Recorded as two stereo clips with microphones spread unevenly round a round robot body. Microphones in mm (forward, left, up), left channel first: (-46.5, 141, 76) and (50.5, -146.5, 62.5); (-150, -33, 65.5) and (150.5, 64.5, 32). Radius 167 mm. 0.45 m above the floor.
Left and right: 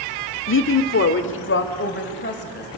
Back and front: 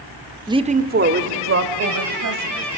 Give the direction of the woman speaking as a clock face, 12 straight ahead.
9 o'clock.